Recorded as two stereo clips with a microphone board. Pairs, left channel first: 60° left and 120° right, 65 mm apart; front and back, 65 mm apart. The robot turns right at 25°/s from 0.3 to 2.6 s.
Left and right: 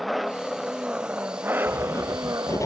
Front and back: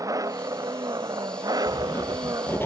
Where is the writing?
20° left; by 2.7 s 45° left.